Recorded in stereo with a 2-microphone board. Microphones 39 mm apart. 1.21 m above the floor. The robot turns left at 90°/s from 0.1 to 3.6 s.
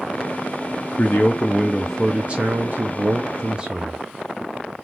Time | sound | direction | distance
1.0 | a man speaking | 75° left | 0.6 m